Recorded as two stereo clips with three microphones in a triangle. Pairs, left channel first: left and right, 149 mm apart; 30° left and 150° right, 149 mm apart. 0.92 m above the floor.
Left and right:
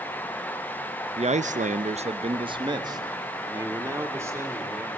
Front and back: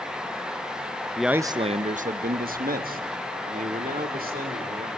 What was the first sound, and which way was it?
A man speaking, 55° right.